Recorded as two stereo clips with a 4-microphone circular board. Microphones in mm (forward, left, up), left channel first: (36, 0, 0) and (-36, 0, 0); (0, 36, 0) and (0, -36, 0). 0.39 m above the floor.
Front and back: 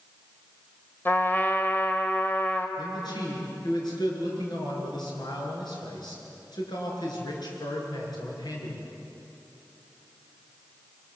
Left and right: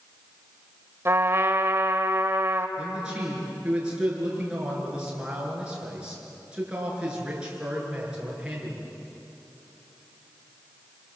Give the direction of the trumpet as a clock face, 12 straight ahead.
2 o'clock.